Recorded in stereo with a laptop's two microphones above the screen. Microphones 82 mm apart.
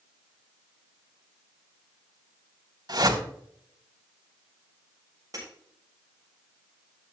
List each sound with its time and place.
2.9 s a whoosh: 60° right (ahead or behind), 3.5 m
5.3 s breaking glass: 45° right (ahead or behind), 7.5 m